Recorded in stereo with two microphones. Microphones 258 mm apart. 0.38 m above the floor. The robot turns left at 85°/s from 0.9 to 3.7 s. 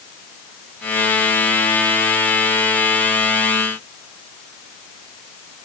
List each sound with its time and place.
Only background noise.